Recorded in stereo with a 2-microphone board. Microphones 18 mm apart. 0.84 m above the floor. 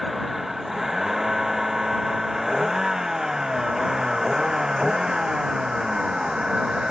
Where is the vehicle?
15° right (ahead or behind); by 6.9 s 45° right (ahead or behind).